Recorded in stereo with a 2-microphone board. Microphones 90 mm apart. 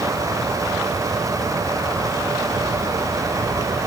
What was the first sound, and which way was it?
Only background noise.